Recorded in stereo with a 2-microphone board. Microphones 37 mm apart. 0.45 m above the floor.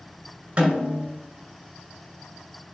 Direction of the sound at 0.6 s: 35° right (ahead or behind).